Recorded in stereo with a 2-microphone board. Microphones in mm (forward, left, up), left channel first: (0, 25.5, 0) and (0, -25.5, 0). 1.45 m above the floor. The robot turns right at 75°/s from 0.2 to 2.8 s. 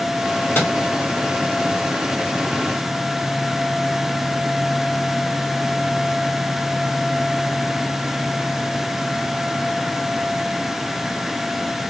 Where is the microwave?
45° left (ahead or behind), 1.3 m; by 0.7 s 55° left (ahead or behind), 1.3 m.